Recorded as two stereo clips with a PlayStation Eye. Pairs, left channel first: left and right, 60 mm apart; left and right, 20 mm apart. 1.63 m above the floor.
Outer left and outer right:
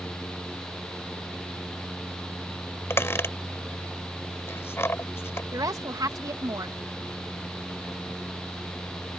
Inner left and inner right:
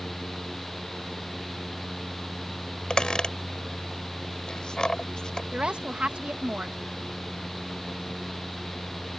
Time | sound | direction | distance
2.9 | a squeak | 45° left (ahead or behind) | ?
5.5 | a woman speaking | 90° right | ?